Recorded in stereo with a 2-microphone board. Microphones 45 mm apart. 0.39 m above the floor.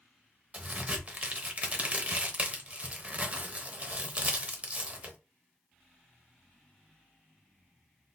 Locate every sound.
0.5 s a crack: 35° right (ahead or behind), 0.8 m